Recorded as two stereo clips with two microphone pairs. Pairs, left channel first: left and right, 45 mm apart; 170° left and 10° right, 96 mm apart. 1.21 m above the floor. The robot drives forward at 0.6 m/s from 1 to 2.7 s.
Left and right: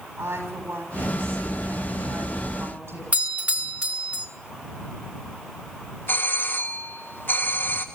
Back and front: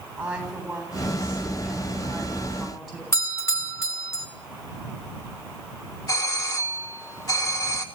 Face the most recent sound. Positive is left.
turn(degrees=120)